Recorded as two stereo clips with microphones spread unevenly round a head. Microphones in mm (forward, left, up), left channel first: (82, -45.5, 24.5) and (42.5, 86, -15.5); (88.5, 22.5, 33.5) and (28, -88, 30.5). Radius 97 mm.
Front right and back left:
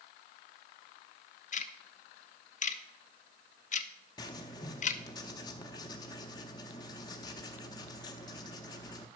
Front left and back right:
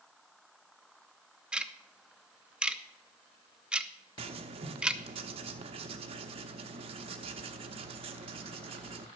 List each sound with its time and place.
1.5 s ticking: 40° right, 0.7 m
4.2 s writing: 100° right, 0.6 m